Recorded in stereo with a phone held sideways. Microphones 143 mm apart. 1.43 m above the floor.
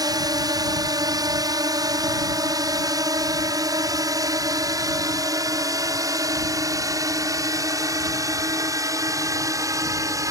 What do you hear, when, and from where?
0.0 s a drone: 25° right (ahead or behind)